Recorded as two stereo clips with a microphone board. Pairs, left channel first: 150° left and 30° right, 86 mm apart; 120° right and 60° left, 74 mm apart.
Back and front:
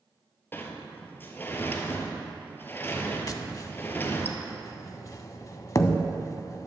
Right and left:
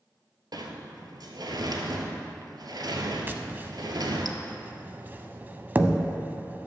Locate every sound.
0.5 s a sliding door: 85° left, 1.0 m
3.3 s tapping: 115° left, 0.5 m